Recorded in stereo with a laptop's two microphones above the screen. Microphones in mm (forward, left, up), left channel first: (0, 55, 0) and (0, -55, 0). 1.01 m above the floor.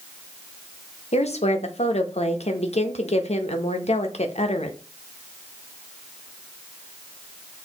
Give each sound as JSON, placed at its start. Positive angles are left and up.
{"t": 1.1, "sound": "a woman speaking", "side_deg": 75, "distance_m": 0.7}